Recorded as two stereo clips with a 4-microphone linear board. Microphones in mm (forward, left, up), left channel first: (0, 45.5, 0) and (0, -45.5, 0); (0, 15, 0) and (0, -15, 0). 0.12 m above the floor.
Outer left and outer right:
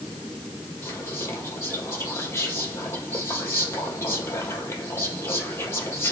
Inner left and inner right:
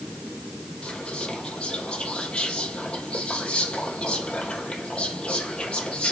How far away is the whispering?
About 3.5 m.